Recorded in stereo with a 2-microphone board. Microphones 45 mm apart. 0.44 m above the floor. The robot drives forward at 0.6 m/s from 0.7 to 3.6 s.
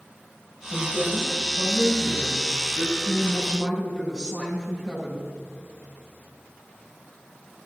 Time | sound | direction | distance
0.7 | a woman speaking | 10° left (ahead or behind) | 7 m